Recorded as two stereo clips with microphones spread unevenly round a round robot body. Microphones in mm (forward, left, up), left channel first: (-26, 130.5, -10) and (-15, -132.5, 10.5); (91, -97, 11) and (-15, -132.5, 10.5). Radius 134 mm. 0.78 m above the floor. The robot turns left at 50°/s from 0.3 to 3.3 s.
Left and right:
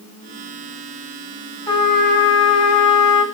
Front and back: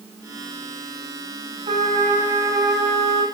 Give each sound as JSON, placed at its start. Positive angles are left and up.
{"t": 1.7, "sound": "a trumpet", "azimuth_deg": 165, "distance_m": 2.5}